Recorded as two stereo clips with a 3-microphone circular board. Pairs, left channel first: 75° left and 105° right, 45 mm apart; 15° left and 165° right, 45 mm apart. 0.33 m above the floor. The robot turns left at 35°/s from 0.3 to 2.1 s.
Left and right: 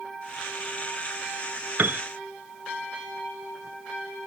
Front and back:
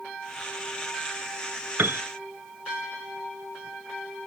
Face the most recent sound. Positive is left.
turn(degrees=-150)